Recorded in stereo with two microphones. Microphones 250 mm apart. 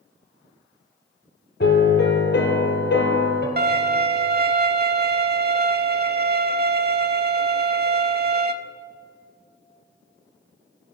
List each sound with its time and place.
1.6 s a piano: 45° left (ahead or behind), 1.6 m
3.6 s a violin: 45° right (ahead or behind), 0.5 m